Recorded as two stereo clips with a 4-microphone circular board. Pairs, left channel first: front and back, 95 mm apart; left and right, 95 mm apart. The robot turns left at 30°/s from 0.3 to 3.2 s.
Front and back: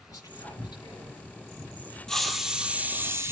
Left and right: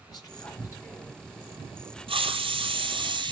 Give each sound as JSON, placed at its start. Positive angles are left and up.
{"t": 0.1, "sound": "whispering", "azimuth_deg": 50, "distance_m": 3.5}
{"t": 2.1, "sound": "a hiss", "azimuth_deg": -85, "distance_m": 1.0}